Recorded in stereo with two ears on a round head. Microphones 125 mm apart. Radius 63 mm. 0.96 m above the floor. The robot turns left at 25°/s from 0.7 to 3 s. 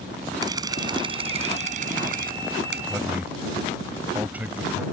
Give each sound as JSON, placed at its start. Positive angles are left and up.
{"t": 0.4, "sound": "a camera shutter", "azimuth_deg": -25}
{"t": 2.9, "sound": "a man speaking", "side_deg": -10}